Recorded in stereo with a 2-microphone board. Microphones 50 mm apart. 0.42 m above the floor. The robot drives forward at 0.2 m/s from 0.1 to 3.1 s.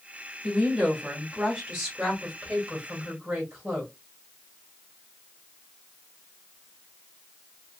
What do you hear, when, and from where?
0.4 s a woman speaking: 15° right (ahead or behind), 1.5 m; by 3.9 s 10° right (ahead or behind), 1.9 m